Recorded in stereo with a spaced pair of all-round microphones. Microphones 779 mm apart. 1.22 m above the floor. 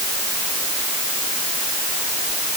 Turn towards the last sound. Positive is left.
No sound to turn to.